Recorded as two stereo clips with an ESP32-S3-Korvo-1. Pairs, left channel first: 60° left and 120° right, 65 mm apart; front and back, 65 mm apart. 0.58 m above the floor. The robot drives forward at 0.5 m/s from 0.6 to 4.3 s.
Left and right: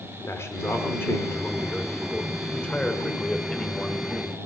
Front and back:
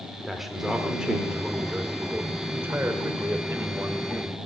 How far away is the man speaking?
About 1.7 m.